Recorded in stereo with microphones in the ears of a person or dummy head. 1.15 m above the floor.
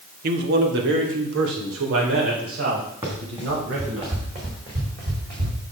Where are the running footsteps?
25° right (ahead or behind), 4 m; by 5.6 s 45° right (ahead or behind), 4 m.